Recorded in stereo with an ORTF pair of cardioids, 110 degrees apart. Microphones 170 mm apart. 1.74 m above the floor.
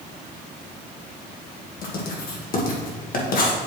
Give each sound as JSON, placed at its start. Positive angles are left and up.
{"t": 1.8, "sound": "writing", "azimuth_deg": 55, "distance_m": 1.8}